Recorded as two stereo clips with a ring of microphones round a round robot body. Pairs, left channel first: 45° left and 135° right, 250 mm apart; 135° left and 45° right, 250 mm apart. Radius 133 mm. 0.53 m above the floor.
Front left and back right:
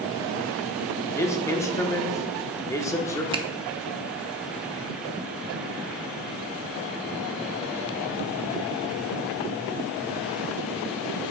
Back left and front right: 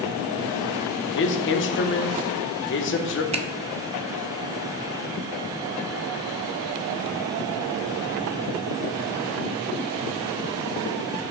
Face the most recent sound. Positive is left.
turn(degrees=-85)